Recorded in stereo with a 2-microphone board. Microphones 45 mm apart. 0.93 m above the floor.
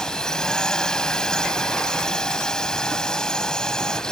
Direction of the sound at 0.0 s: 15° left (ahead or behind).